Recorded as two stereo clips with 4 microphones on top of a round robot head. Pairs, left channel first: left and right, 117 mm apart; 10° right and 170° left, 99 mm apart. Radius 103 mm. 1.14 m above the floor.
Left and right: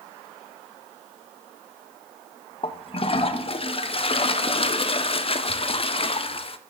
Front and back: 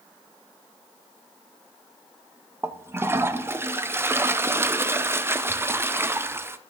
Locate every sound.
2.6 s a toilet flushing: 105° left, 0.6 m